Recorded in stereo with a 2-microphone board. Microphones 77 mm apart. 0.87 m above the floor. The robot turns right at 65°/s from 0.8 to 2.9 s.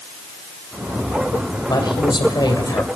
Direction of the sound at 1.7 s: 60° left.